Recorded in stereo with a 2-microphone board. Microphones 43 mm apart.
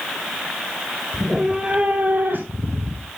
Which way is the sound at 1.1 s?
5° right (ahead or behind).